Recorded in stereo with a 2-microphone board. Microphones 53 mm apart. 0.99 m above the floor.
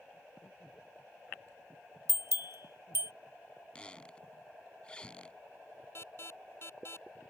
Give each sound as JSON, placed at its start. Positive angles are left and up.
{"t": 2.1, "sound": "a bell", "side_deg": -55}
{"t": 3.8, "sound": "a squeak", "side_deg": 20}
{"t": 6.0, "sound": "an alarm", "side_deg": 45}